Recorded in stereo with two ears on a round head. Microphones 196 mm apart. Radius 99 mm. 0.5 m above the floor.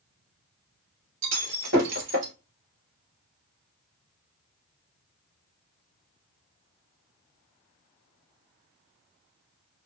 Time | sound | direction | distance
1.2 | breaking glass | 60° right (ahead or behind) | 2 m